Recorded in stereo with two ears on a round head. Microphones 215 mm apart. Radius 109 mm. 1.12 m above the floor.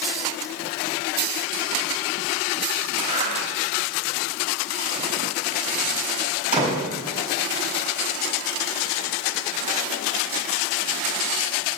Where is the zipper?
35° right (ahead or behind), 4 m.